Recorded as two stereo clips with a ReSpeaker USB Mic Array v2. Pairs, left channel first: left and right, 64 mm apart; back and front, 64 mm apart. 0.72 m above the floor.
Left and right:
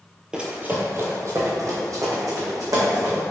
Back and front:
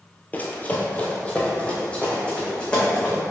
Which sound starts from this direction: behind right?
Running footsteps, at 0.3 s.